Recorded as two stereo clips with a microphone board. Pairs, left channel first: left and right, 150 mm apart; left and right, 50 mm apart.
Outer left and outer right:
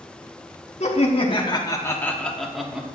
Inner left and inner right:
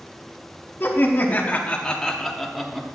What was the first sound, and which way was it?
Laughter, 45° left (ahead or behind).